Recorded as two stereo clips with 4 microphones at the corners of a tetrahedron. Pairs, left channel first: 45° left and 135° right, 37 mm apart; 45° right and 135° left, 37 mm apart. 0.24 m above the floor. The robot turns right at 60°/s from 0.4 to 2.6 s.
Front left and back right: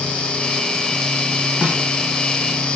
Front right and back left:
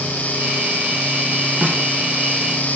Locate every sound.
1.6 s a snare drum: 175° left, 2.5 m; by 1.8 s 170° right, 2.5 m